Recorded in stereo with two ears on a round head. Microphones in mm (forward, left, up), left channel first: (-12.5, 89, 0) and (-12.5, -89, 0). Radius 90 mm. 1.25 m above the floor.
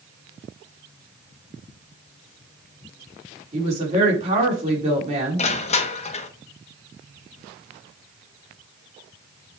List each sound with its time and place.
3.5 s a woman speaking: 35° right (ahead or behind), 4 m
5.4 s crushing: 35° left (ahead or behind), 1.0 m